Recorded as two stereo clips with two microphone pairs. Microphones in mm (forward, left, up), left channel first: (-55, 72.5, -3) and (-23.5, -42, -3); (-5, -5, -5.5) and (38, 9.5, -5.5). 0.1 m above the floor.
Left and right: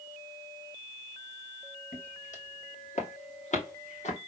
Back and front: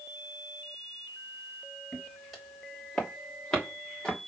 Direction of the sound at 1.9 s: 105° left.